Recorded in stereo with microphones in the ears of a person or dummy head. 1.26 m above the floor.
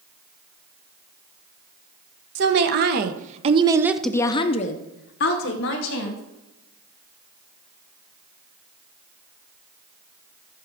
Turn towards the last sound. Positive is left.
turn(degrees=70)  # may be behind; listen again after turning